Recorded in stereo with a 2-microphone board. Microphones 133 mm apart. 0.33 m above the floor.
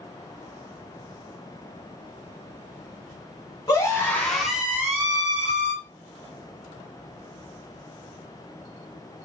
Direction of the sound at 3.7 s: 30° left (ahead or behind).